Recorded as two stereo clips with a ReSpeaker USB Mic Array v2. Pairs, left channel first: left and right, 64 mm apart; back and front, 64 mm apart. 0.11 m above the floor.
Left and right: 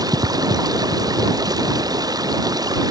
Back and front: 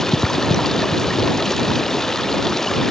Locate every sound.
0.0 s running water: 95° right